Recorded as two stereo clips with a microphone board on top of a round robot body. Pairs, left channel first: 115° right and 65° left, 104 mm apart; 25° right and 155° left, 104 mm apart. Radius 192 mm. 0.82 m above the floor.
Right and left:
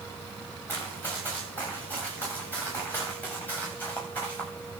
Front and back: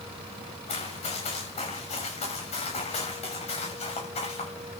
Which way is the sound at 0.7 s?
40° right.